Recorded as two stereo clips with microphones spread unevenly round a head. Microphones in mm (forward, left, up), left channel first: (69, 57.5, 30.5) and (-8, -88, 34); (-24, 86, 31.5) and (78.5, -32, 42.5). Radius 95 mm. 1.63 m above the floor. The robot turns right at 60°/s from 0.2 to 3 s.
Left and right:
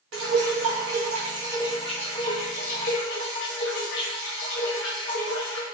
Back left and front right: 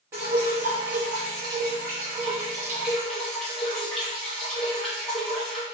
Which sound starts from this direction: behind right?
Dripping, at 0.1 s.